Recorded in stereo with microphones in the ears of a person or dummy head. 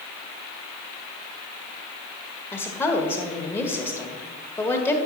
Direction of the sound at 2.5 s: 15° left (ahead or behind).